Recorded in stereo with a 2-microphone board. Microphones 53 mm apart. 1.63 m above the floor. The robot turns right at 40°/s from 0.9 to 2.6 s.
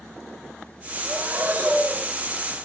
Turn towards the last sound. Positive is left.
turn(degrees=10)